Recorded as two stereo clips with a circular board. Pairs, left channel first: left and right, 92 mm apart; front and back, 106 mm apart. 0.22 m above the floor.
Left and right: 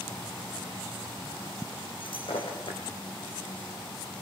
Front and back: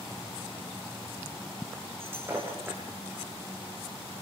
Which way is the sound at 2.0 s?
110° left.